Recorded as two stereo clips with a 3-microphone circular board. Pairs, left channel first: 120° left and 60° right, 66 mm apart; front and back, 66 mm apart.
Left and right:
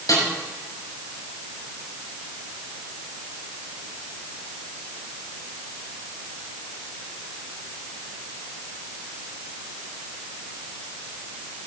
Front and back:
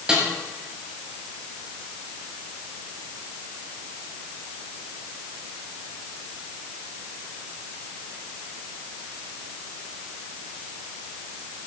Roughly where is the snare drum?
Left.